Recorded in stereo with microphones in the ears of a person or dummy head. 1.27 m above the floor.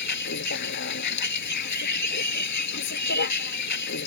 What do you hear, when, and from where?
0.0 s a vehicle: 60° left (ahead or behind)